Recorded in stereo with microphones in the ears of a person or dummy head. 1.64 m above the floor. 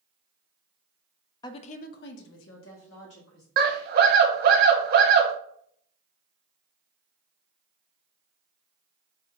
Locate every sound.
1.4 s a woman speaking: 25° left (ahead or behind), 0.5 m; by 3.5 s 75° left (ahead or behind), 1.5 m
3.6 s a scream: 60° right (ahead or behind), 1.0 m